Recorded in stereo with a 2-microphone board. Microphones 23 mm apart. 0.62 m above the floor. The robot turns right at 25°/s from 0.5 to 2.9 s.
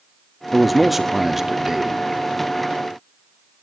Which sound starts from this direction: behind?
A man speaking, at 0.5 s.